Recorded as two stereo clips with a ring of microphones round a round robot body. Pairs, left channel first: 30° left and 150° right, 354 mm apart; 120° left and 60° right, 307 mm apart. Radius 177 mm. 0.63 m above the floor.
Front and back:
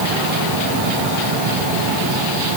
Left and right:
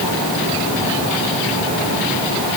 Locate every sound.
Only background noise.